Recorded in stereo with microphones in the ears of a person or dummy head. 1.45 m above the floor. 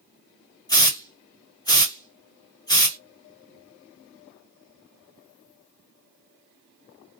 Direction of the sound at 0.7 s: 20° left (ahead or behind).